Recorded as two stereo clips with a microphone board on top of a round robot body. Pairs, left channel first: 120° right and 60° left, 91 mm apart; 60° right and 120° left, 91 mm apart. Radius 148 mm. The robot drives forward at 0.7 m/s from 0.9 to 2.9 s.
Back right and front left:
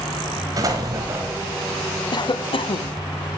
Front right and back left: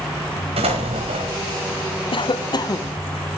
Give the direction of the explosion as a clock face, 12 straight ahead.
8 o'clock.